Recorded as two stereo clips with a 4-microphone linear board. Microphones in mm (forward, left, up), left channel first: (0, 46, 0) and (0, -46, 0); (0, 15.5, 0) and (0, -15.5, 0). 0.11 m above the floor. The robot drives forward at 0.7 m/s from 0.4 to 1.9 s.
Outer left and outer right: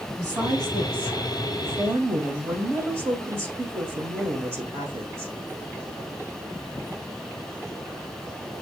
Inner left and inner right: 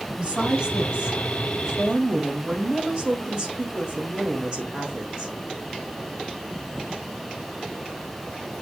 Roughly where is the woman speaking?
Right.